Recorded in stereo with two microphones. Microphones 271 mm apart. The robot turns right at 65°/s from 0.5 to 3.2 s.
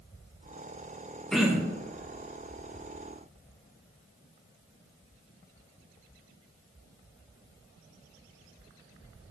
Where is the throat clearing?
5° left (ahead or behind), 0.9 m; by 1.8 s 25° right (ahead or behind), 0.9 m.